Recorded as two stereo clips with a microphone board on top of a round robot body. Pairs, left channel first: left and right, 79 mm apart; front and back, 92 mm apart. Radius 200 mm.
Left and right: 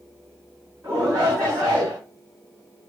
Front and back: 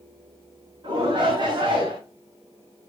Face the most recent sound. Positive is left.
turn(degrees=-145)